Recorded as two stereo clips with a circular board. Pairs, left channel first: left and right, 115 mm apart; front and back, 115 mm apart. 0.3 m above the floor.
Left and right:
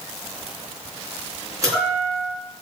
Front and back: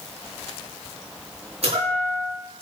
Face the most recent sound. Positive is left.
turn(degrees=-150)